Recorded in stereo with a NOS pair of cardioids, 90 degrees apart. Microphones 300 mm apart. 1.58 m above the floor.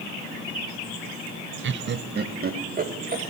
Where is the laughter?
40° right, 0.8 m; by 3.2 s 30° right, 2.5 m.